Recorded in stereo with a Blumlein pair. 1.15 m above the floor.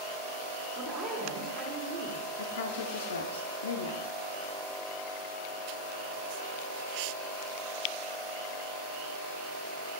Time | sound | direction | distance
0.7 | a woman speaking | 15° right | 1.6 m
2.4 | a woman speaking | 65° left | 0.5 m